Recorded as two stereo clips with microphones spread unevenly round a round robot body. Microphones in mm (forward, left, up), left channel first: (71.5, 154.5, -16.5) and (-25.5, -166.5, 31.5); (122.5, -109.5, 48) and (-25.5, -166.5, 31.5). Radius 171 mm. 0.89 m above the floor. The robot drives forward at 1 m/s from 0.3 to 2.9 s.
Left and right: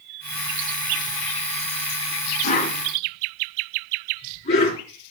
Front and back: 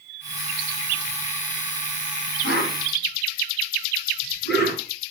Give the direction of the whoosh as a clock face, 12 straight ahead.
7 o'clock.